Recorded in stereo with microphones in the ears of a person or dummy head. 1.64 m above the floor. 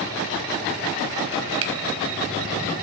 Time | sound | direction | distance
1.6 | a finger snap | 70° right (ahead or behind) | 1.1 m